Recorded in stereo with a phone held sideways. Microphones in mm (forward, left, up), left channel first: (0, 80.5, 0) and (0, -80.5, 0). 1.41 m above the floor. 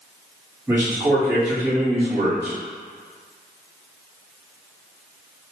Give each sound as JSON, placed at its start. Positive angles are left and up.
{"t": 0.7, "sound": "a man speaking", "side_deg": -15, "distance_m": 1.6}